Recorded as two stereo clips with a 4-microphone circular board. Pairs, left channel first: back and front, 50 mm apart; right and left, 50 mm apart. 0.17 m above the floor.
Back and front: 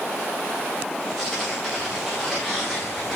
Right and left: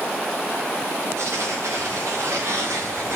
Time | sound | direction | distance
1.2 | tearing paper | 90° left | 6 m